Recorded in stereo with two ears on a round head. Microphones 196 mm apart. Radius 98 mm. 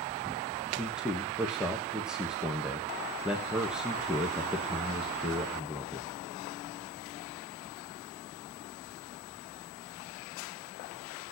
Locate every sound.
0.7 s a man speaking: 5° right (ahead or behind), 1.3 m